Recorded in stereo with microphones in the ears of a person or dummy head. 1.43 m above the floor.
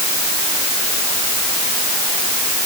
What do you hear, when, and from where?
Only background noise.